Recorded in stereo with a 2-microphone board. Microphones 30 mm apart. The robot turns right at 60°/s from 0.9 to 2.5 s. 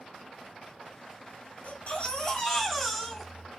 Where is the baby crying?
125° left, 1.6 m; by 3.5 s 175° left, 1.6 m.